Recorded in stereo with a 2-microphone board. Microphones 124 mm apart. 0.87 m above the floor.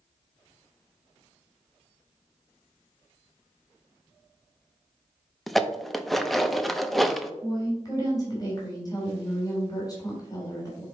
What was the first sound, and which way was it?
Dishes clattering, centre (ahead or behind).